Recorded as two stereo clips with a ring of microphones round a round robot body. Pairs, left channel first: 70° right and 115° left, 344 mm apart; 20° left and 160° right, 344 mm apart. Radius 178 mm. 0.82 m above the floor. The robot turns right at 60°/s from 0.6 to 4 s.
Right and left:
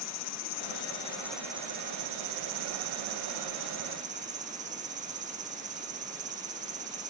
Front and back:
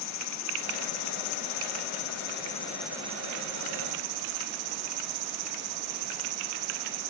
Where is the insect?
20° right; by 7.1 s straight behind.